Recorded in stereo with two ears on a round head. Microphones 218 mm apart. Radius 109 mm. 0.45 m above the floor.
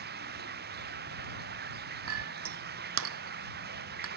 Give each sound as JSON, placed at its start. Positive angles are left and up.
{"t": 0.0, "sound": "running water", "side_deg": -45}
{"t": 2.1, "sound": "a clink", "side_deg": -60}